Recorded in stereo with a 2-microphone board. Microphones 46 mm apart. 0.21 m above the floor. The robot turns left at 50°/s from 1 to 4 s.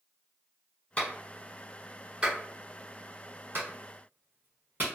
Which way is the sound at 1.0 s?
30° left (ahead or behind).